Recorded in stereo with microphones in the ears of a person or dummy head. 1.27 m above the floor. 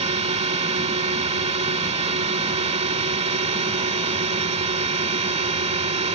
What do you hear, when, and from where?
0.0 s a drone: 35° right (ahead or behind)